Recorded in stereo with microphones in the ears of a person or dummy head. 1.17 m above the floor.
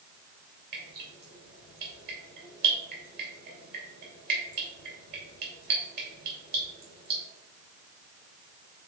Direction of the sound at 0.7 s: 50° right (ahead or behind).